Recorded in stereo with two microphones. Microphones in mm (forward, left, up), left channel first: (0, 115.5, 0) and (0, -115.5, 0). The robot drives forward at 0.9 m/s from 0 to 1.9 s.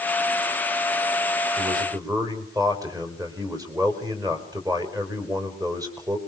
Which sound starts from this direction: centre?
A man speaking, at 1.6 s.